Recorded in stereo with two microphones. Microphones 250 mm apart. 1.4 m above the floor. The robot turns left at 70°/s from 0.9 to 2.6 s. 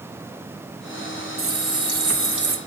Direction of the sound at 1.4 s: 55° right.